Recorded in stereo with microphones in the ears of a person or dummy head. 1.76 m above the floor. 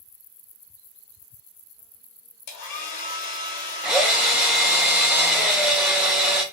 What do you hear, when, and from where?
2.5 s a hair dryer: 50° left (ahead or behind), 1.0 m
3.8 s a drill: 10° right (ahead or behind), 0.7 m